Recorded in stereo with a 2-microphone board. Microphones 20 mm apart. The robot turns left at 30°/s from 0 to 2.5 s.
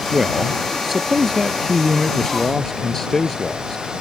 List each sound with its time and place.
0.1 s a man speaking: 140° right; by 3.9 s 145° left